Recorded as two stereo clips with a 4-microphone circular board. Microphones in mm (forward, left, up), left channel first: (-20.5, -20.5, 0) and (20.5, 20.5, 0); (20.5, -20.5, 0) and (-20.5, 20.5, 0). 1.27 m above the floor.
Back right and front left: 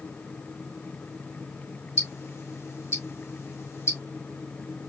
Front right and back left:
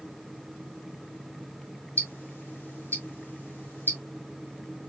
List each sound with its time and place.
2.0 s ticking: 100° right, 2 m